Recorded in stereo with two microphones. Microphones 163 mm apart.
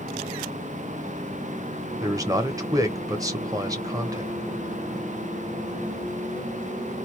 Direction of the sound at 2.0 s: 20° right (ahead or behind).